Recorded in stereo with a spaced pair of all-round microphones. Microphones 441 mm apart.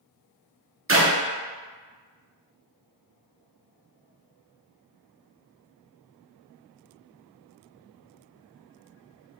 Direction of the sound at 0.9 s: 30° right (ahead or behind).